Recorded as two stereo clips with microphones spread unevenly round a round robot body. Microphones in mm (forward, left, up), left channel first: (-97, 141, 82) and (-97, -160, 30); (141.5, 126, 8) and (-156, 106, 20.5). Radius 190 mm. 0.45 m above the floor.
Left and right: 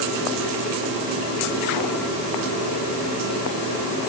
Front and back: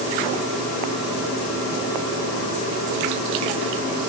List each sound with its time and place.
Only background noise.